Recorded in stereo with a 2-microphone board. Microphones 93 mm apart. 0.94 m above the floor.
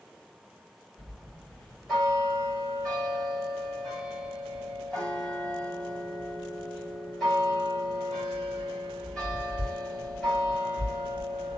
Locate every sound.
1.0 s a bell: 5° left (ahead or behind), 2 m